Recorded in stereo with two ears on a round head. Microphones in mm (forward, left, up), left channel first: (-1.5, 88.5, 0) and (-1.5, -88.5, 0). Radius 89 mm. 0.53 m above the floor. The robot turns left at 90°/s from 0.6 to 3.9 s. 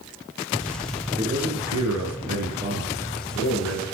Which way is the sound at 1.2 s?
25° right.